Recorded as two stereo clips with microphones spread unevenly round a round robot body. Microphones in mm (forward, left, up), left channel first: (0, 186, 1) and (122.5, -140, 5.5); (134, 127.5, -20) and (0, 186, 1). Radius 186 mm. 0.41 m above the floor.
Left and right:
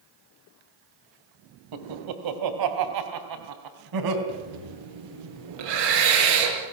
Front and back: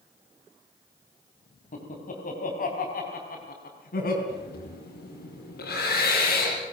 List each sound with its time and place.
1.7 s laughter: 60° right, 2.5 m; by 4.2 s 50° right, 4 m
4.3 s breathing: 60° right, 5 m